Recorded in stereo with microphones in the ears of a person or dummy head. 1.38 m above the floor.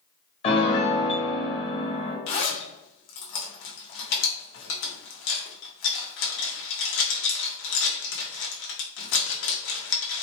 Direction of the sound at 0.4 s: 30° left (ahead or behind).